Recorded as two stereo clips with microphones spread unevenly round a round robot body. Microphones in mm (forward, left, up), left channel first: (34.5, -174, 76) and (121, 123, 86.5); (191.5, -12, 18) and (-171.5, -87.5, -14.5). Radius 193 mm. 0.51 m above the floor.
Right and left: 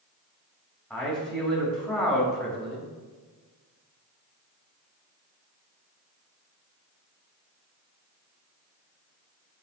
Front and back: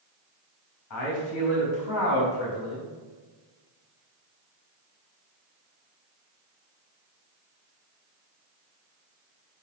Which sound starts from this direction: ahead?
A man speaking, at 0.9 s.